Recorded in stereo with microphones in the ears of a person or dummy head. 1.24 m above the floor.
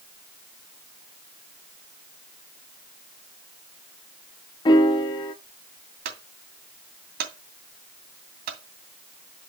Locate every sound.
4.7 s a piano: 20° left (ahead or behind), 0.6 m
6.0 s a clunk: 60° right (ahead or behind), 2.5 m